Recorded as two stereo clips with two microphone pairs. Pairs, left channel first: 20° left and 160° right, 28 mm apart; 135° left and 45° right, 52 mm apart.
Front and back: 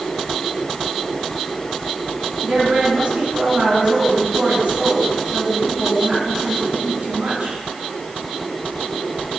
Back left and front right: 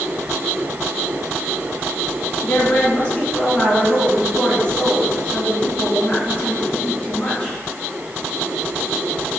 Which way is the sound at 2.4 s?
155° right.